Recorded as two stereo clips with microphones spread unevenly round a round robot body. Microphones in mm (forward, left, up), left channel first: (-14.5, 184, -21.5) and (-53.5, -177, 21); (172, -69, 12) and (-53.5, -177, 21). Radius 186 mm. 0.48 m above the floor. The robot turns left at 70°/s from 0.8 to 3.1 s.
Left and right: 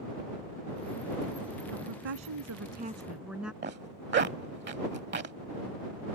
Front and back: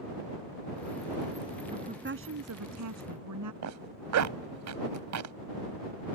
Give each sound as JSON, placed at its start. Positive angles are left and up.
{"t": 1.7, "sound": "a woman speaking", "azimuth_deg": -85}
{"t": 3.6, "sound": "a zipper", "azimuth_deg": -160}